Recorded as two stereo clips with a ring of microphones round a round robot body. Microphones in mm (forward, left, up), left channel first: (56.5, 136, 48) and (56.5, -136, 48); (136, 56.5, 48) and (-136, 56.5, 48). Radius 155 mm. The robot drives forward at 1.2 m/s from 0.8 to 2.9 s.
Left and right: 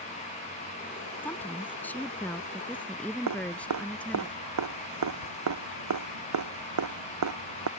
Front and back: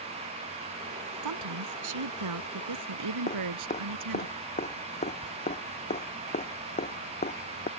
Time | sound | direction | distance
1.2 | a woman speaking | 175° left | ?
3.3 | dripping | 70° right | ?